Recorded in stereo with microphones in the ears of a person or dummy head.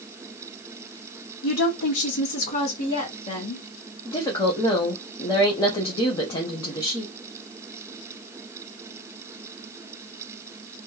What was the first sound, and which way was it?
A woman speaking, 75° left (ahead or behind).